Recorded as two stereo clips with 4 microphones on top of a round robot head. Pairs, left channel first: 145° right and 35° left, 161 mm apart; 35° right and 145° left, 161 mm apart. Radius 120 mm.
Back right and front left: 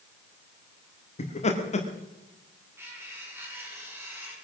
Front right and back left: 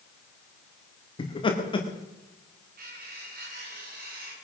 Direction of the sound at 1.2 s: 95° right.